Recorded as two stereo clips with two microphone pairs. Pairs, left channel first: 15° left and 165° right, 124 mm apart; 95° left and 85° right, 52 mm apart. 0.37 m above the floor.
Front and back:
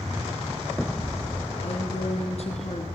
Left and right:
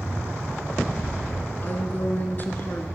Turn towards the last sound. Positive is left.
turn(degrees=45)